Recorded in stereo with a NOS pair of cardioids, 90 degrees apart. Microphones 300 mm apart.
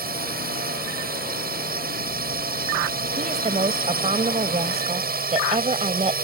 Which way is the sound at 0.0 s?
30° right.